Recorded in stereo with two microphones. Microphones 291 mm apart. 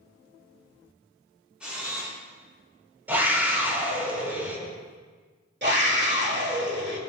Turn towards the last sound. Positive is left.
turn(degrees=-40)  # may be behind; listen again after turning